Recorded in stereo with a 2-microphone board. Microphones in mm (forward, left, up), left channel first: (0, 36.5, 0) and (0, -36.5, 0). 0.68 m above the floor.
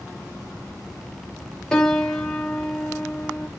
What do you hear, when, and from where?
1.7 s a piano: 10° left (ahead or behind), 1.1 m